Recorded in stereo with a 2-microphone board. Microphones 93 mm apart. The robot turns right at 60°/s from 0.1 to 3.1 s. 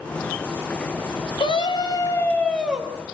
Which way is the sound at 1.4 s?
105° left.